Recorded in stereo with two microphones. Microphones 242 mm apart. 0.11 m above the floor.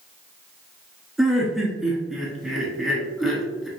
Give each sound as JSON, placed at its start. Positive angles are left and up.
{"t": 1.2, "sound": "laughter", "side_deg": 0, "distance_m": 1.1}